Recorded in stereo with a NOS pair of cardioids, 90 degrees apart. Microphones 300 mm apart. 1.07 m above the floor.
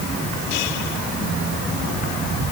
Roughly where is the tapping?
No tapping in this recording.